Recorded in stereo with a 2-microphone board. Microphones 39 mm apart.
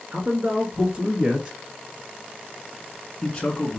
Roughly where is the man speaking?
Right.